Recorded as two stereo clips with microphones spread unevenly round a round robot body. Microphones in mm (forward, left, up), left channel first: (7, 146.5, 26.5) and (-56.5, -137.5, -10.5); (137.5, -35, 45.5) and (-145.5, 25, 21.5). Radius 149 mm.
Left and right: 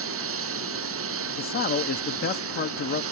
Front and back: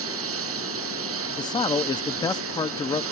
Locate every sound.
0.0 s a lawn mower: 145° right
1.4 s a man speaking: 55° left